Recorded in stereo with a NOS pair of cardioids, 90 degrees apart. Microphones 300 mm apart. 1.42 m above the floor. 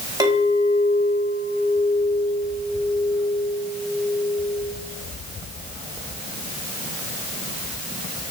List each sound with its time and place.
0.2 s a clink: 15° right, 4 m